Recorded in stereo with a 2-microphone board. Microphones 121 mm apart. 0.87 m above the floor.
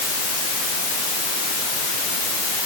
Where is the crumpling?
I don't hear crumpling.